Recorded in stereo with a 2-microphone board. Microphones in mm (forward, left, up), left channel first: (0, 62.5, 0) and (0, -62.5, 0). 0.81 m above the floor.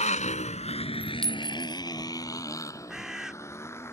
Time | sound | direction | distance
0.0 | a motorcycle | 75° left (ahead or behind) | ?
1.2 | a clink | 5° left (ahead or behind) | ?
2.9 | a bird | 5° right (ahead or behind) | ?